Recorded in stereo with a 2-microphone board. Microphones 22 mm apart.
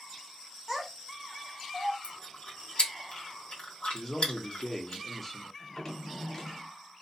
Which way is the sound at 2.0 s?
60° left (ahead or behind).